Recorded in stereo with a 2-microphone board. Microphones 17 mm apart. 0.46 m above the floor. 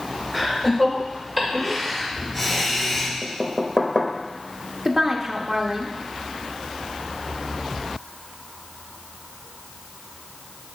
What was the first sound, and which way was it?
Laughter, 10° right (ahead or behind).